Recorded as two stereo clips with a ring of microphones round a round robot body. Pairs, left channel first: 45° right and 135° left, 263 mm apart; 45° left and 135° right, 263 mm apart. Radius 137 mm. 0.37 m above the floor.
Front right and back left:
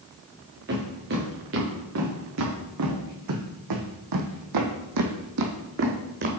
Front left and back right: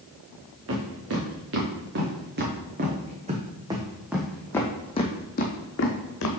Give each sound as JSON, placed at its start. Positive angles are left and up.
{"t": 0.7, "sound": "footsteps", "azimuth_deg": -175, "distance_m": 2.5}